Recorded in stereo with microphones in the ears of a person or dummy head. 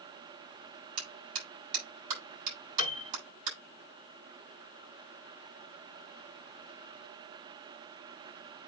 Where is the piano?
35° left (ahead or behind), 2.5 m.